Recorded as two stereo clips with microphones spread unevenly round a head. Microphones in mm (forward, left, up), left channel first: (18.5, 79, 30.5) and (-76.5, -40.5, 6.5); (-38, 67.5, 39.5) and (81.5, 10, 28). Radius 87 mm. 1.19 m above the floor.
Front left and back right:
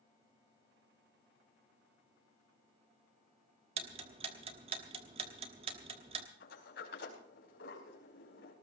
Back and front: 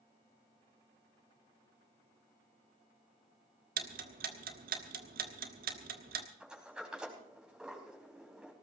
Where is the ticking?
65° right, 1.1 m.